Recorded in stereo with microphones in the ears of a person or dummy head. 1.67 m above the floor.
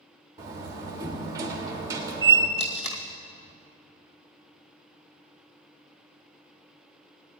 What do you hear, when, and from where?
0.4 s a door slam: 15° right (ahead or behind), 2.0 m
2.6 s tape being pulled: 30° left (ahead or behind), 1.5 m